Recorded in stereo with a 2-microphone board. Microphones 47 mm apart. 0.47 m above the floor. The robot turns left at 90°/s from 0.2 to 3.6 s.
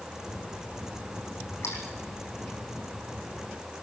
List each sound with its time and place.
1.6 s a splash: 75° left (ahead or behind), 4 m; by 1.8 s 85° left, 4 m